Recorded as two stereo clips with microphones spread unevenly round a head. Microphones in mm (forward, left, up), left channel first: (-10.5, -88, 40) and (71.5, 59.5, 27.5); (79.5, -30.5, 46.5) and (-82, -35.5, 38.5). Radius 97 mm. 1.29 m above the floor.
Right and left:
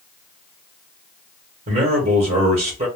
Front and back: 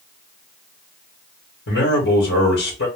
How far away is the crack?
I don't hear a crack.